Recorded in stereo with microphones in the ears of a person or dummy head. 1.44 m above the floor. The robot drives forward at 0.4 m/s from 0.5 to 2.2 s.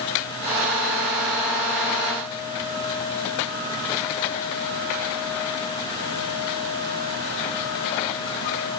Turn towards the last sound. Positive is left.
No sound to turn to.